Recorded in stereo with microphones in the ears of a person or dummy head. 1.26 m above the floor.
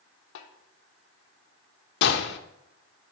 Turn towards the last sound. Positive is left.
turn(degrees=65)  # may be behind; listen again after turning